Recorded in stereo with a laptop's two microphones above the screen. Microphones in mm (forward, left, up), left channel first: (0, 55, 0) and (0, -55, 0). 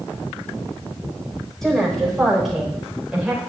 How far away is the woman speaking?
About 4.5 m.